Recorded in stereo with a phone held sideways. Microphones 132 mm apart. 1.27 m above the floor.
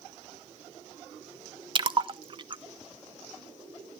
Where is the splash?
40° right (ahead or behind), 0.5 m.